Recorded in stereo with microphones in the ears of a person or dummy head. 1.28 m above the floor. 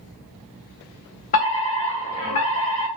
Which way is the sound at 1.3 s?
35° left (ahead or behind).